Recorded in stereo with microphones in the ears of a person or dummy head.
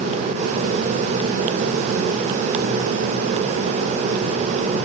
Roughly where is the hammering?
No hammering in this recording.